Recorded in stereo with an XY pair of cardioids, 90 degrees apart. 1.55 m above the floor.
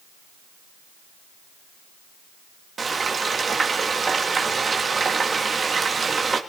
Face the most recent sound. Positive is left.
turn(degrees=-40)